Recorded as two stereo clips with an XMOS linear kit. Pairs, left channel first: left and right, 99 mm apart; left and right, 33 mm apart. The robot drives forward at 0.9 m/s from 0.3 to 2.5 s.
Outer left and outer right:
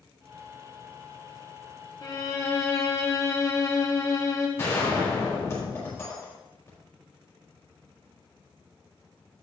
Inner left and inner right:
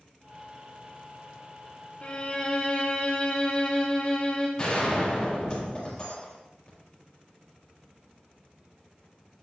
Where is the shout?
No shout in this recording.